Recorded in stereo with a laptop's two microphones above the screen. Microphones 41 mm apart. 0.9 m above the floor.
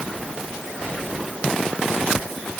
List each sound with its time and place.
Only background noise.